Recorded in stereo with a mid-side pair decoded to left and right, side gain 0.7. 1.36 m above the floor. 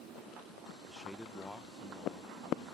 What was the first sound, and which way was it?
A man speaking, 15° right.